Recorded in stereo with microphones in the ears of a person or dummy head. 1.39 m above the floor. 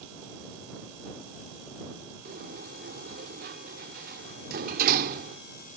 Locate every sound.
2.2 s a sliding door: 50° right (ahead or behind)